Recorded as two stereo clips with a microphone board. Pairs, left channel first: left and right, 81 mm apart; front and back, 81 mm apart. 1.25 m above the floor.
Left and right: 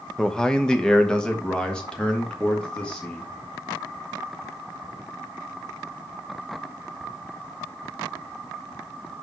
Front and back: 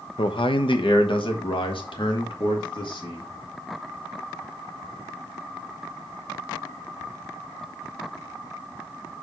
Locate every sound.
0.2 s a man speaking: 5° left, 0.7 m; by 3.3 s 10° left, 2.5 m